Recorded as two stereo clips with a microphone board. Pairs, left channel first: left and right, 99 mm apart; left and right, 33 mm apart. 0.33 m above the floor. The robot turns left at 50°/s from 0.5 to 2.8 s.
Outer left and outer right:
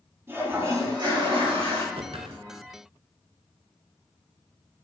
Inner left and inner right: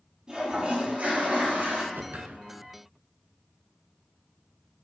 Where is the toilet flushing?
25° right, 4.5 m; by 1.8 s 95° right, 4.5 m.